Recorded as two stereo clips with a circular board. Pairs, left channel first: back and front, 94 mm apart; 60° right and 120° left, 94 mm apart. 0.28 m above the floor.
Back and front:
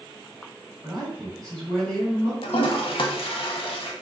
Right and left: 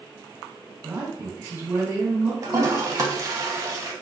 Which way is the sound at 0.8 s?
100° left.